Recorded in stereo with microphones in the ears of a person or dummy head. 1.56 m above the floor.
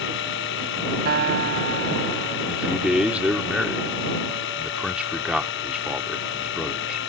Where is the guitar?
60° right (ahead or behind).